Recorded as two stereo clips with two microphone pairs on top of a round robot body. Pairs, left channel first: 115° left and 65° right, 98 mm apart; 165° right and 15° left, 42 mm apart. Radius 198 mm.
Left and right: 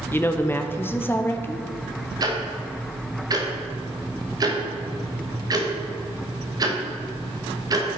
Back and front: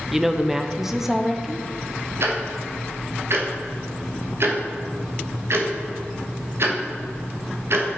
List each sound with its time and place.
0.1 s a woman speaking: 85° left, 0.8 m
2.2 s ticking: 10° right, 1.4 m